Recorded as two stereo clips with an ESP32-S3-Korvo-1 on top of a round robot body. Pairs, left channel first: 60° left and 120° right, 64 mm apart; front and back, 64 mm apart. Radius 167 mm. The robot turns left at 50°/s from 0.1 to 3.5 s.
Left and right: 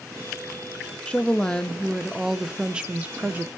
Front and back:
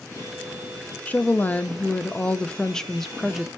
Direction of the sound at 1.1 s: 20° left.